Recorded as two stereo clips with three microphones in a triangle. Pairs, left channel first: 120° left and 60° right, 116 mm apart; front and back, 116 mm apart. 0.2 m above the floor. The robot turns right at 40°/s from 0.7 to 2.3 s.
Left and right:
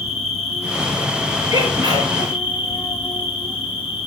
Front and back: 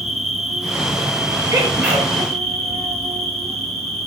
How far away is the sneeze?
About 4.5 m.